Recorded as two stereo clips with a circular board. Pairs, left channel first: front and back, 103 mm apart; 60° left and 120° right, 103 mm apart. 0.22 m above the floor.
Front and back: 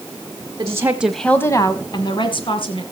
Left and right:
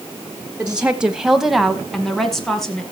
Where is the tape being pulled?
No tape being pulled in this recording.